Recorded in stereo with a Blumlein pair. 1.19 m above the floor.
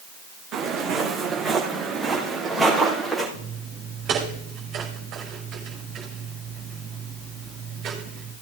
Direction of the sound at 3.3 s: 30° right.